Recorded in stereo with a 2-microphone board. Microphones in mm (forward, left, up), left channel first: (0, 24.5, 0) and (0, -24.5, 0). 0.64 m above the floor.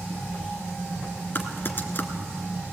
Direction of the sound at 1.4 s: 45° left (ahead or behind).